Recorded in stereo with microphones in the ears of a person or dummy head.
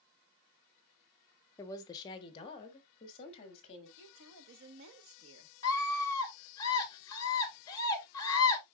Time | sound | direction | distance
1.6 | a woman speaking | 15° left (ahead or behind) | 0.7 m
4.0 | a woman speaking | 70° right (ahead or behind) | 1.3 m
5.6 | a scream | 20° left (ahead or behind) | 2.5 m